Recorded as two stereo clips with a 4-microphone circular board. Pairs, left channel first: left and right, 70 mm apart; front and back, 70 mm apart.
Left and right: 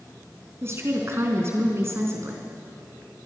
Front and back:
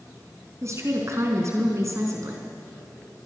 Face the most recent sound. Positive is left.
turn(degrees=-140)